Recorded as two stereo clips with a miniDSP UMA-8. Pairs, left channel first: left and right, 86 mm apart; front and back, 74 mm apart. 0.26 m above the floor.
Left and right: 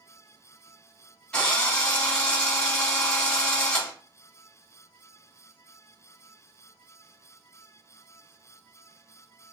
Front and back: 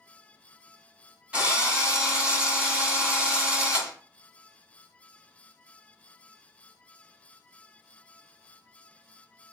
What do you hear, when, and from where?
1.3 s a drill: 145° left, 1.2 m